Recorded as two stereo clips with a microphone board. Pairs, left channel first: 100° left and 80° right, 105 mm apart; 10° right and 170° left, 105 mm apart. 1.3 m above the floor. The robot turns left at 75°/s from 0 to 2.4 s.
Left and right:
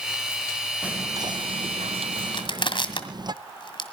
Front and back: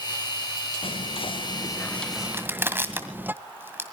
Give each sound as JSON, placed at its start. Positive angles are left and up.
{"t": 0.8, "sound": "whispering", "azimuth_deg": 0, "distance_m": 0.7}
{"t": 2.3, "sound": "crushing", "azimuth_deg": 110, "distance_m": 1.8}